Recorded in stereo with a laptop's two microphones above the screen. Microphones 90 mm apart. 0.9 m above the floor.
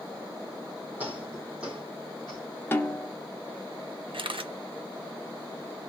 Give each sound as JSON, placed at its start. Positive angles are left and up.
{"t": 1.0, "sound": "footsteps", "side_deg": -20, "distance_m": 2.0}
{"t": 2.7, "sound": "a snare drum", "side_deg": 25, "distance_m": 0.8}
{"t": 4.1, "sound": "a camera shutter", "side_deg": -70, "distance_m": 0.6}